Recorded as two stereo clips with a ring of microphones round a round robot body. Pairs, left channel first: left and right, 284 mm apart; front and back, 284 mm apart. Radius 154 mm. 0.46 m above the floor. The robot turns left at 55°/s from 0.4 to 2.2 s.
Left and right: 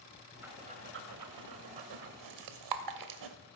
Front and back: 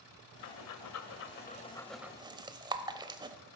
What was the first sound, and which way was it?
Breathing, 5° right.